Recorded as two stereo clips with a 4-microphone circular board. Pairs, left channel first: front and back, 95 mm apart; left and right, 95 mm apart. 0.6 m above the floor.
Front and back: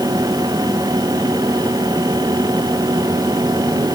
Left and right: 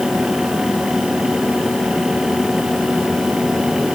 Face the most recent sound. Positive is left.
No sound to turn to.